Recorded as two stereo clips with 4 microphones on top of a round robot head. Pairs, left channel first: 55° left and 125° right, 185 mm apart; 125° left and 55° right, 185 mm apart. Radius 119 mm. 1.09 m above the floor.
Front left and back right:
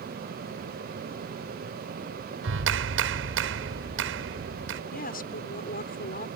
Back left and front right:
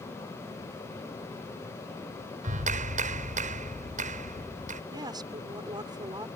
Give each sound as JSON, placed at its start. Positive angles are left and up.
{"t": 2.4, "sound": "a clap", "azimuth_deg": -110}
{"t": 4.9, "sound": "a woman speaking", "azimuth_deg": 15}